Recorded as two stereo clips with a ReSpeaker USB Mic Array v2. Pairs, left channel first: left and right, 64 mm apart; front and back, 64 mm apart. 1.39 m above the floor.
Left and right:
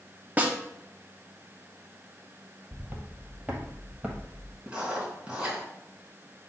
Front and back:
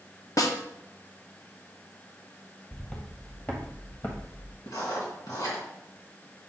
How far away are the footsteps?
About 1.5 m.